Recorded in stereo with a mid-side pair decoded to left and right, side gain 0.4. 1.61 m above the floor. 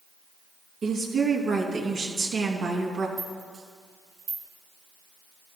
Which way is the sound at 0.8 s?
65° right.